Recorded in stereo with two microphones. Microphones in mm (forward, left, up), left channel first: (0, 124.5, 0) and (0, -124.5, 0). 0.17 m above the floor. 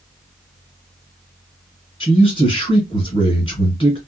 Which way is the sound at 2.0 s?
20° left (ahead or behind).